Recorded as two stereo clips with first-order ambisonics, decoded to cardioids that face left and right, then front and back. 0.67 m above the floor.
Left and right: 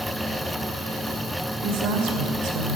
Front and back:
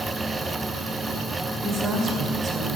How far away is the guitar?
I don't hear a guitar.